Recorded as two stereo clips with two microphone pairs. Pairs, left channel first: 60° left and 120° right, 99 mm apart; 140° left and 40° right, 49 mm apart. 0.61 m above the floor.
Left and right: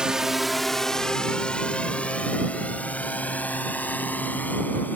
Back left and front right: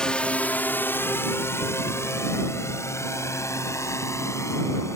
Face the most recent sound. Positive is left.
turn(degrees=130)